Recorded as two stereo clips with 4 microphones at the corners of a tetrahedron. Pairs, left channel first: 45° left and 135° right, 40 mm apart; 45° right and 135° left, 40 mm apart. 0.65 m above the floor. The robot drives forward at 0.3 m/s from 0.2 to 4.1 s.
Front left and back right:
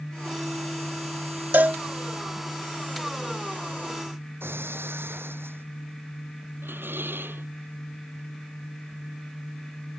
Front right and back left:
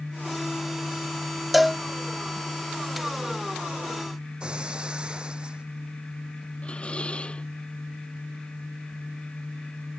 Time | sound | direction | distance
1.5 | a cowbell | 140° right | ?
4.4 | breaking glass | 160° right | ?
6.6 | dishes clattering | 105° right | ?